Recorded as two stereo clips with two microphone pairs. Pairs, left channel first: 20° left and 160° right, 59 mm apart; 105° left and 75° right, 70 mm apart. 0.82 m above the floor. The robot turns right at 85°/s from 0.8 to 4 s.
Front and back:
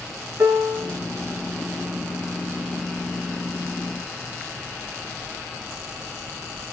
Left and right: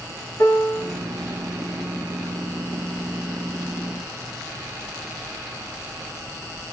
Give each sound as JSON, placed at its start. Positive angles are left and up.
{"t": 0.4, "sound": "a piano", "azimuth_deg": 150, "distance_m": 2.0}